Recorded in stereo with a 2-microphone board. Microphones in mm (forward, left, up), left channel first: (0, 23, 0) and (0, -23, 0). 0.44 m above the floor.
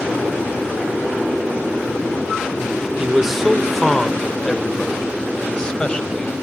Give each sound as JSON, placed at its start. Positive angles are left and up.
{"t": 3.0, "sound": "a man speaking", "side_deg": -10, "distance_m": 0.8}